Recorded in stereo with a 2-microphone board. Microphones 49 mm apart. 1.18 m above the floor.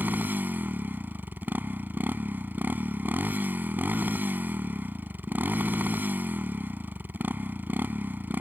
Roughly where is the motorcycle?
Right.